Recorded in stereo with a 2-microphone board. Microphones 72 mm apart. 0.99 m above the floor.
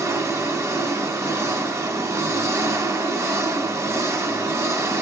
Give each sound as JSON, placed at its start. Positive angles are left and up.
{"t": 0.0, "sound": "an engine running", "side_deg": -45, "distance_m": 1.5}